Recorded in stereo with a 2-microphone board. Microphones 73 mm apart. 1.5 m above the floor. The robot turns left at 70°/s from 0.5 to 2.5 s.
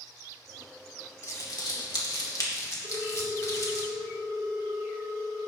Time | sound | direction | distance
1.2 | crumpling | 40° left (ahead or behind) | 2.0 m
2.8 | a ringtone | 55° right (ahead or behind) | 1.9 m